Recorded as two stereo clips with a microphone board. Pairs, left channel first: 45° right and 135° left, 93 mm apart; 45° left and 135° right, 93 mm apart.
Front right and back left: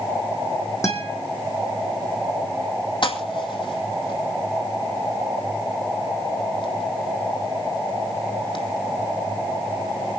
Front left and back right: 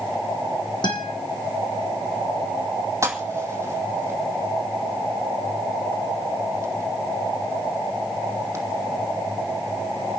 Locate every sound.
0.8 s a guitar: 10° left, 3.5 m
3.0 s a pop: 75° right, 2 m